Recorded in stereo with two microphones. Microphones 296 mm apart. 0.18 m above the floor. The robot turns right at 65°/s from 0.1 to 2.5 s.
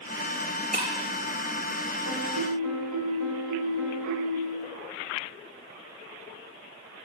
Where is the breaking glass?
25° right (ahead or behind), 4.5 m; by 0.9 s 35° right (ahead or behind), 4.5 m.